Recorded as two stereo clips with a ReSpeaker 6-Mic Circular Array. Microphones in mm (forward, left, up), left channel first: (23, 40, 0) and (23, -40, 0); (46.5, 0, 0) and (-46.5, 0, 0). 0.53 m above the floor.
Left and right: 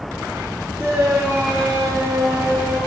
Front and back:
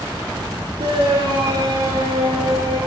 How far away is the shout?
About 7 m.